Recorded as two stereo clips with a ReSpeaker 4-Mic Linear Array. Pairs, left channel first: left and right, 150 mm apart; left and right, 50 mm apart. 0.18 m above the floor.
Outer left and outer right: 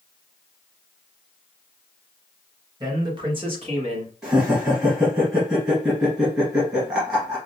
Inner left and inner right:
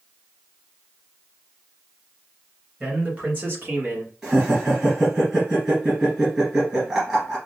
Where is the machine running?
I don't hear a machine running.